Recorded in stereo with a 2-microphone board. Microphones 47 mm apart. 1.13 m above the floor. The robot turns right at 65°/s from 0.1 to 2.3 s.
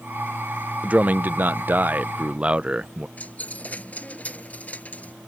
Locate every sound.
0.8 s a man speaking: 130° right; by 3.1 s 35° right
3.2 s a dropped coin: 30° left (ahead or behind)